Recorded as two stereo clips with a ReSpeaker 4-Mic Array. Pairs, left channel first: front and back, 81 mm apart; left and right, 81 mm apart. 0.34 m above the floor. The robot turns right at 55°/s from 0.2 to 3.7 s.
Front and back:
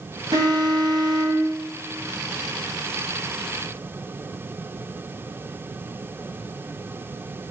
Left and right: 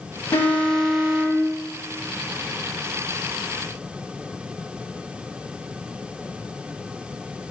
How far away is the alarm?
About 2.0 m.